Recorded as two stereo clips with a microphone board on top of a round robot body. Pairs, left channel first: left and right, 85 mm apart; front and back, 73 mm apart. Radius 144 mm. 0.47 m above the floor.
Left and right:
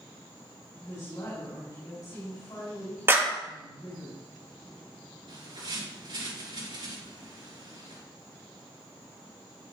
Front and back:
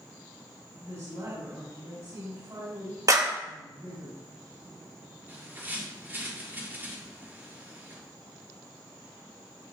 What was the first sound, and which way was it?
A woman speaking, 135° left.